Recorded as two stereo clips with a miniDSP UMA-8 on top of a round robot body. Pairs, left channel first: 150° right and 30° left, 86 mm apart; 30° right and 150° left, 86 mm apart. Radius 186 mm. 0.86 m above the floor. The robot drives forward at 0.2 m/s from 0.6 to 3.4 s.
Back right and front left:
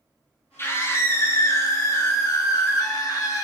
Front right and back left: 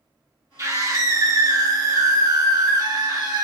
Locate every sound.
0.6 s a scream: 170° left, 1.1 m; by 3.5 s 175° left, 1.5 m